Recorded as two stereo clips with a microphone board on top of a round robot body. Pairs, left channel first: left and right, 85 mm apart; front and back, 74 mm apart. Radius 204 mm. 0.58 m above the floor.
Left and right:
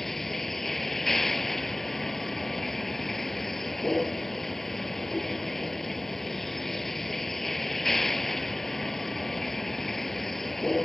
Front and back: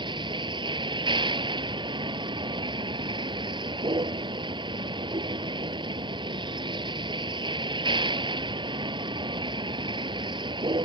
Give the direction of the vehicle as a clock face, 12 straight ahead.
6 o'clock.